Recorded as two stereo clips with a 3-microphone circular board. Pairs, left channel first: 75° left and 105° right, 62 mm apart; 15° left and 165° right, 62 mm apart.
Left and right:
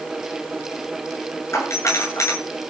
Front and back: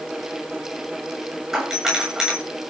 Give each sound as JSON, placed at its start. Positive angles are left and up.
{"t": 1.5, "sound": "a doorbell", "azimuth_deg": 115, "distance_m": 8.5}